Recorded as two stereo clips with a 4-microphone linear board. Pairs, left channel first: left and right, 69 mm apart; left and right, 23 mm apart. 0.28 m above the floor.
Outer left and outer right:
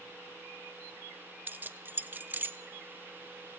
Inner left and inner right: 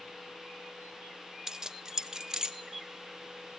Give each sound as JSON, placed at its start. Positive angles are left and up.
{"t": 1.5, "sound": "keys jangling", "side_deg": -30, "distance_m": 0.7}